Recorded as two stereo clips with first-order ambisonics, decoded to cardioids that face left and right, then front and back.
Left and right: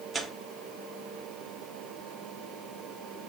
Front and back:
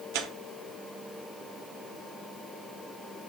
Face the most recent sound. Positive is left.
turn(degrees=-165)